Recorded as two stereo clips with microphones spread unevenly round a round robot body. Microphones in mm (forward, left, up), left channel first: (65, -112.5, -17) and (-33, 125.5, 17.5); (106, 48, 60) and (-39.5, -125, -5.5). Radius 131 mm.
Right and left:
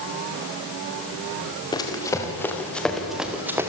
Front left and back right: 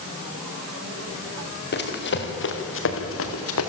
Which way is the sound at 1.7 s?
10° left.